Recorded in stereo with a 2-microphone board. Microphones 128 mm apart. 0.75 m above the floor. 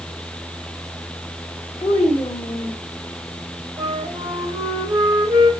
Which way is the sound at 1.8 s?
45° left (ahead or behind).